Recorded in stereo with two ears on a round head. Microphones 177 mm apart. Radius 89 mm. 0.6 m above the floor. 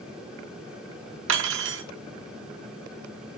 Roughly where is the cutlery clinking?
Right.